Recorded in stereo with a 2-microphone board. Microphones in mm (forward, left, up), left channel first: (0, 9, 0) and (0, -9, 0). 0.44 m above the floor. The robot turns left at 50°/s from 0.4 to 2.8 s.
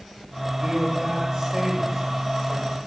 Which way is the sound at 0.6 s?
90° right.